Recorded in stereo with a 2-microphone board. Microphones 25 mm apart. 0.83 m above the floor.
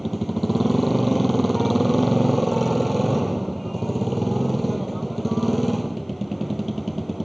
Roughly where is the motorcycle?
Centre.